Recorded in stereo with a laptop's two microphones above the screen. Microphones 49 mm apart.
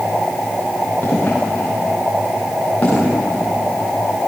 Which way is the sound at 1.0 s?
30° left (ahead or behind).